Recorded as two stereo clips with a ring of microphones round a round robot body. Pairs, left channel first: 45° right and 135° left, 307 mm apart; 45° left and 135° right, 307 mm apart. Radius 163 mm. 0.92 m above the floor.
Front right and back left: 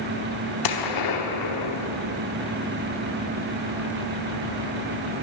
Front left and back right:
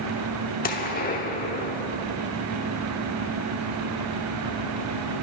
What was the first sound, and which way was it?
A gunshot, 20° right.